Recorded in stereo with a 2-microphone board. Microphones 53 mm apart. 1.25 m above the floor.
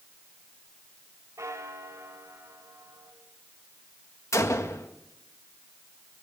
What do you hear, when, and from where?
1.4 s a bell: 85° right, 4 m
4.3 s a gunshot: 80° left, 1.7 m